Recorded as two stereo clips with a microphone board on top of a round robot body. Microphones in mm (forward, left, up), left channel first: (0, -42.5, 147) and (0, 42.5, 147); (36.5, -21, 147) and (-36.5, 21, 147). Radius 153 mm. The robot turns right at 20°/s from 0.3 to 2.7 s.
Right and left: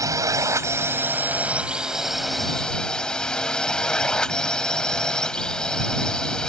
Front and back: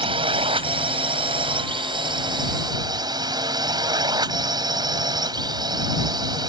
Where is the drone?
140° left; by 6.5 s 170° right.